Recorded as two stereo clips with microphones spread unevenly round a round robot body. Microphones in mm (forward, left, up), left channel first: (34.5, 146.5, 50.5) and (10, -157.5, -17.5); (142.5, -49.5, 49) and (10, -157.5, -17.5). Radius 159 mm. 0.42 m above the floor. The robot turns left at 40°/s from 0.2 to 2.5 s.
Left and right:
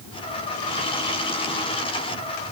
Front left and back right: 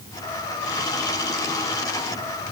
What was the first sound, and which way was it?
Only background noise.